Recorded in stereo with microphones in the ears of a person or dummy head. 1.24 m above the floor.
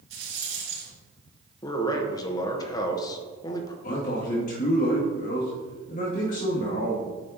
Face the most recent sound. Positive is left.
turn(degrees=45)  # may be behind; listen again after turning